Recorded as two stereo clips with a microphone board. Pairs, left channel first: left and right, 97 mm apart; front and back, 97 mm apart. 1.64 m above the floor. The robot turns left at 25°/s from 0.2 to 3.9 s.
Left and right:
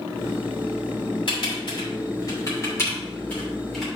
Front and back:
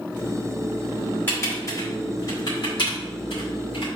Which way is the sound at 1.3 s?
65° left.